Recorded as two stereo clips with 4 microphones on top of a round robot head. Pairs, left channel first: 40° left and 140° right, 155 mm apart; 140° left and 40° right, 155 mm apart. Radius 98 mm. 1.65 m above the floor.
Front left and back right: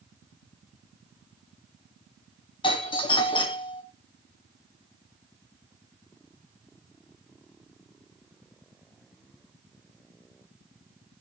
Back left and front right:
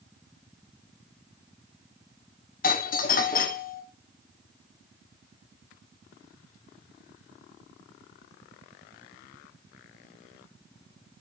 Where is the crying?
I don't hear crying.